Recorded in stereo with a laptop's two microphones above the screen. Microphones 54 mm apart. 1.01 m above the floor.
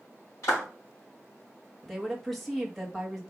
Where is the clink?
No clink in this recording.